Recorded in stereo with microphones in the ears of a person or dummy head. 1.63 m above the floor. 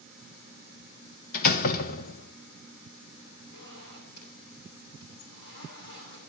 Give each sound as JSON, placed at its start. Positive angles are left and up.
{"t": 1.3, "sound": "a door slam", "side_deg": 50, "distance_m": 1.2}
{"t": 3.5, "sound": "a zipper", "side_deg": 60, "distance_m": 9.0}